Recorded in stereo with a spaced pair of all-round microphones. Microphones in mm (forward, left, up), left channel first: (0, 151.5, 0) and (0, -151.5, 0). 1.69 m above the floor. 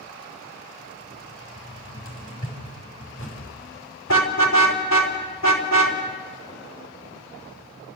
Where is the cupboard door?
45° left (ahead or behind), 6 m.